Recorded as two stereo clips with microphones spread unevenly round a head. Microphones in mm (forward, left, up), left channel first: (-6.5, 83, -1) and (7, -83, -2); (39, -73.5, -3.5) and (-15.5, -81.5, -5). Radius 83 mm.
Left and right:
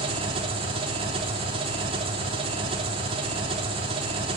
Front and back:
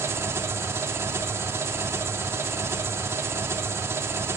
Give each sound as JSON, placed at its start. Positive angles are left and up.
{"t": 0.0, "sound": "an engine running", "azimuth_deg": -145, "distance_m": 3.0}